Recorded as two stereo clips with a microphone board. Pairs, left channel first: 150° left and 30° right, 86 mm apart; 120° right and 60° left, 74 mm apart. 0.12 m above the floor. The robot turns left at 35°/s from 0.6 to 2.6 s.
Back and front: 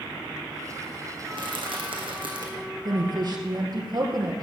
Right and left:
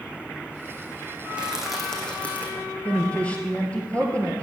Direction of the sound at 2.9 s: 50° right.